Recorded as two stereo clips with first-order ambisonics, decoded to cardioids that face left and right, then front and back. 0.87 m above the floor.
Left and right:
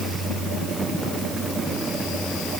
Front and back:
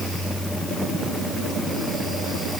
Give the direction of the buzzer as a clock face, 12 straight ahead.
I don't hear a buzzer.